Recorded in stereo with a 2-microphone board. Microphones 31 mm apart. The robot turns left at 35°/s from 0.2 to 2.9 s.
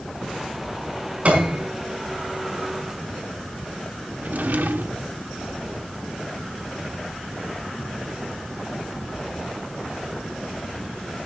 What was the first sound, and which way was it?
A piano, 45° right (ahead or behind).